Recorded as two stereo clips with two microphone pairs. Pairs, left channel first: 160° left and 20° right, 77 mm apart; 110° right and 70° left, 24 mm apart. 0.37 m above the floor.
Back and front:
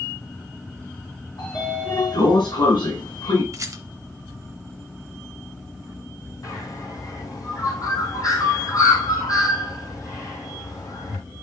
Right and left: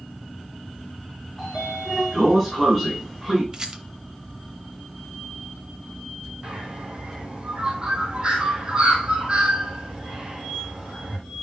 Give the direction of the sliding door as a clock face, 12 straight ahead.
7 o'clock.